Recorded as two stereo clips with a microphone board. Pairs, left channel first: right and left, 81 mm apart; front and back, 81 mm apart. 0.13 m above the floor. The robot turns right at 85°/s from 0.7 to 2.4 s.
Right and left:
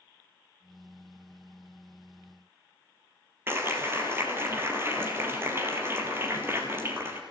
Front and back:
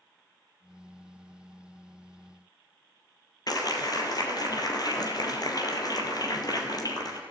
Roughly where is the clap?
Ahead left.